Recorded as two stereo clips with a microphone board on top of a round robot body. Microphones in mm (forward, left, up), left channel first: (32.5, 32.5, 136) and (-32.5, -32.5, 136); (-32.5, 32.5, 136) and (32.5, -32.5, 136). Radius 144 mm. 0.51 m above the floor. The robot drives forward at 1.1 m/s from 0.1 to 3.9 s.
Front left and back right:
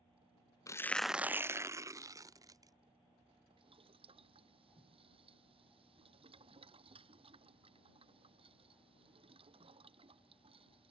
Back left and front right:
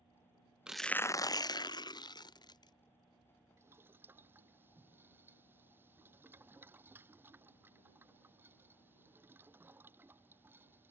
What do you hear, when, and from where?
0.7 s tearing paper: 30° left; by 2.7 s 175° left
3.6 s boiling: 110° right; by 10.9 s 115° right